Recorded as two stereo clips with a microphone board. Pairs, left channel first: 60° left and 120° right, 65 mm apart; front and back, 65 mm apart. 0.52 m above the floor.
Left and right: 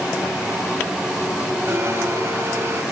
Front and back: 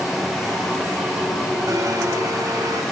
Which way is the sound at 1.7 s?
160° right.